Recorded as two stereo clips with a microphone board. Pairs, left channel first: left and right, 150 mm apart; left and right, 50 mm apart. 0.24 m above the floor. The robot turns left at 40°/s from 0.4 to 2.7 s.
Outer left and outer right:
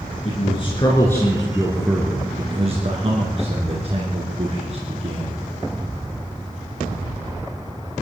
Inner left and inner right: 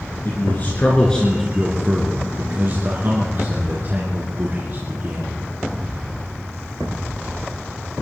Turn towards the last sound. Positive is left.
turn(degrees=-45)  # may be behind; listen again after turning